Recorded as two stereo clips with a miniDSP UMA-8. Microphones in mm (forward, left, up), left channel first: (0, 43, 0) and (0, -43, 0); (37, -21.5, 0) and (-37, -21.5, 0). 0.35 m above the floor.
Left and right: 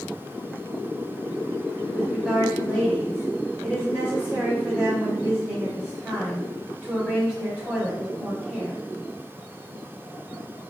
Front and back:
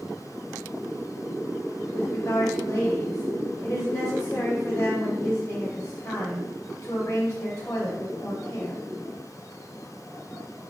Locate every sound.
1.9 s a woman speaking: 20° right, 1.0 m